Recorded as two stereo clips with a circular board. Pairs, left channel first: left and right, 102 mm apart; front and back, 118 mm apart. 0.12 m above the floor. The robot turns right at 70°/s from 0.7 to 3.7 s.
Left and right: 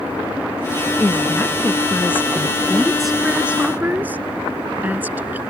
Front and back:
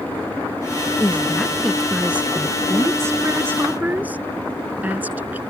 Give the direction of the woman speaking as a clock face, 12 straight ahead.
11 o'clock.